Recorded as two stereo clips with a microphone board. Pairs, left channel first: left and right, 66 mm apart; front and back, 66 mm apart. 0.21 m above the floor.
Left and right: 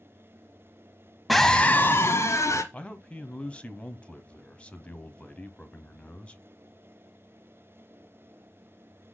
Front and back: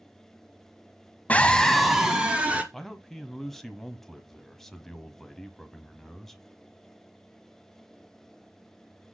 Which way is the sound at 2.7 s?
75° left.